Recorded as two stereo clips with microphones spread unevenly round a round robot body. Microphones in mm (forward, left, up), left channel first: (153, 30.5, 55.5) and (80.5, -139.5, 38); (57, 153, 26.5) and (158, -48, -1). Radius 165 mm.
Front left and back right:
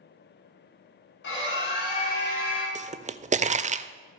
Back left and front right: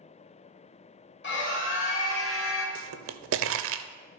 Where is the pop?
60° right, 0.5 m.